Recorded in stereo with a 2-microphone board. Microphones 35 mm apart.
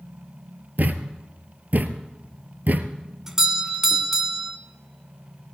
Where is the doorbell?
15° right (ahead or behind), 1.6 m.